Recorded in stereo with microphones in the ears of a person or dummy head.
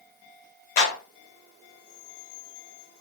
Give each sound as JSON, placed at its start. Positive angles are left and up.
{"t": 0.8, "sound": "a clap", "side_deg": 55, "distance_m": 1.1}